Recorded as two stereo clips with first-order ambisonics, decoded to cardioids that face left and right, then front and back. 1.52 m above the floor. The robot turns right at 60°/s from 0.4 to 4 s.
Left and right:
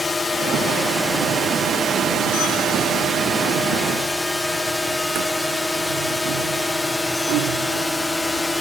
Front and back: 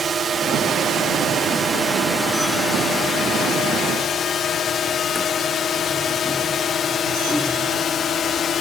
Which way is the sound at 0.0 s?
155° left.